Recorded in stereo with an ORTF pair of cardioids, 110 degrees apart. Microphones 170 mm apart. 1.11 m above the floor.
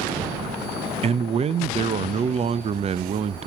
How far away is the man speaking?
About 0.7 m.